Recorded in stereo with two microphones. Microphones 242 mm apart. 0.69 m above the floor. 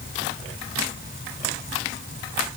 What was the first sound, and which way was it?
Only background noise.